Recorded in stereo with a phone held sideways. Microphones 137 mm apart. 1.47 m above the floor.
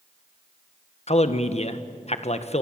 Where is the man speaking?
50° left (ahead or behind), 1.4 m.